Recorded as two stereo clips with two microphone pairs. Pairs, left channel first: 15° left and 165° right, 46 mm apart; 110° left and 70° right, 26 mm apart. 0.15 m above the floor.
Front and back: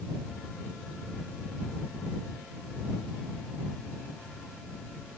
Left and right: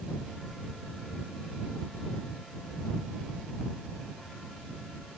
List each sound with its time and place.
Only background noise.